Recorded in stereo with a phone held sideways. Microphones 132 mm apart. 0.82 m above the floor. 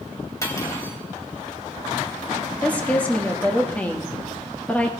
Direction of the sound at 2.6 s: 10° left (ahead or behind).